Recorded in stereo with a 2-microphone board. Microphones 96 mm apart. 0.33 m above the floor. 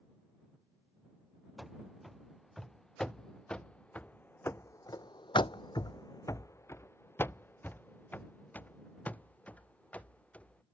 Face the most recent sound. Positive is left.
turn(degrees=15)  # may be behind; listen again after turning